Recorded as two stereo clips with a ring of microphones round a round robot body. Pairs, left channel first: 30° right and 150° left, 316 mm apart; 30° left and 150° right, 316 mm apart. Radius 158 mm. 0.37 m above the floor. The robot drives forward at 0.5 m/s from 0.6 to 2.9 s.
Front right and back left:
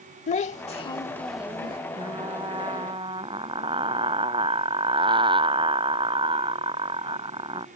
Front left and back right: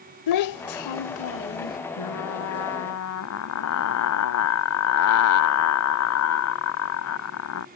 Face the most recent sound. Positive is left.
turn(degrees=75)